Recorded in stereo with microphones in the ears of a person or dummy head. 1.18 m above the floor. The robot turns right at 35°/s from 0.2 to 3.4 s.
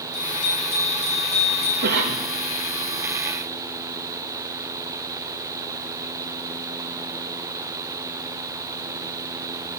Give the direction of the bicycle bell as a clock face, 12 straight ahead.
9 o'clock.